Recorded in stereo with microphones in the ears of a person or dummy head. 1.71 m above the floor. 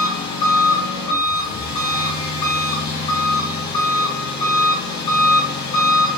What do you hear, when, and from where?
0.0 s an engine running: 30° left (ahead or behind), 1.4 m